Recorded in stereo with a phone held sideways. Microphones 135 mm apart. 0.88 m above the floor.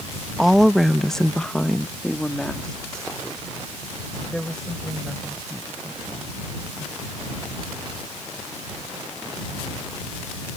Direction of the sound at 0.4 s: Centre (ahead or behind).